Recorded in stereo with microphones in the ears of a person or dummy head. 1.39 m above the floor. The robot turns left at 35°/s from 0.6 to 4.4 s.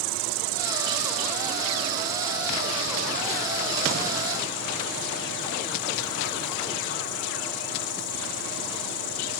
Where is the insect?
110° right; by 9.4 s 120° left.